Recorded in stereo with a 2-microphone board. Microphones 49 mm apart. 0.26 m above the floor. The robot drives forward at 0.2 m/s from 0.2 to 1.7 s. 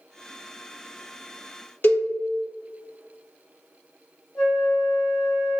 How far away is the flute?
About 1.3 m.